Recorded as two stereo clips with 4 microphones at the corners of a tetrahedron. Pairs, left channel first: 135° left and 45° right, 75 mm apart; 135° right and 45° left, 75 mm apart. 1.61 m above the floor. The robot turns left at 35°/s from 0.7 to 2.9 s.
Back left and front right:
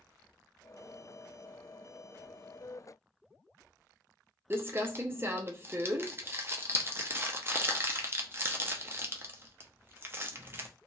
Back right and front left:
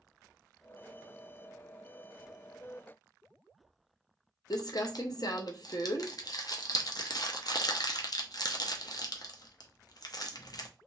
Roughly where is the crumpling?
Right.